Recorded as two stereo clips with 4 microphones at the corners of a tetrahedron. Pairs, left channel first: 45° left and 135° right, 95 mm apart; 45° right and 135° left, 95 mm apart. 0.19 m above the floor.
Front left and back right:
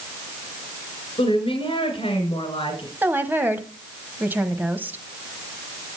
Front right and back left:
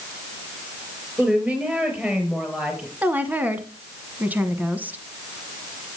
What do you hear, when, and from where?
1.2 s a woman speaking: 60° left, 3 m
3.0 s a woman speaking: straight behind, 1.1 m